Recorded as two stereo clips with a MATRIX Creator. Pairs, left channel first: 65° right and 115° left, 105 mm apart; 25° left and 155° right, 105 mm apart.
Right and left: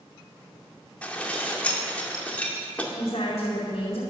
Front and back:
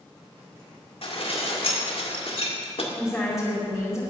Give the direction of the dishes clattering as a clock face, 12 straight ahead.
12 o'clock.